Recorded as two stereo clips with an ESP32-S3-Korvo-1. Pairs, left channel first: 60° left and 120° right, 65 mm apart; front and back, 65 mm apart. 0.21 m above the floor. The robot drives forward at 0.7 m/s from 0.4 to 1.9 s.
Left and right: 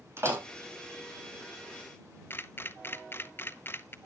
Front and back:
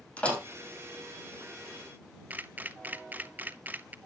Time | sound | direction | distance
0.2 | a door slam | 70° right | 5.5 m
2.3 | a camera shutter | 115° left | 0.6 m